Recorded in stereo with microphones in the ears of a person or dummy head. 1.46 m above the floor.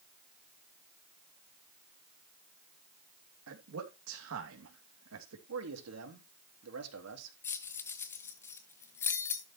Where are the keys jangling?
15° left (ahead or behind), 0.9 m.